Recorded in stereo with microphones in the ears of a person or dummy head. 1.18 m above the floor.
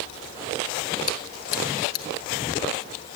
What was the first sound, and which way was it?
Chewing, 85° left.